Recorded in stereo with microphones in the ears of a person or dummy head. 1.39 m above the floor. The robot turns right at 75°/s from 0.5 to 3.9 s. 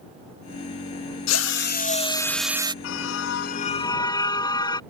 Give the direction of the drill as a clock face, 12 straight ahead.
9 o'clock.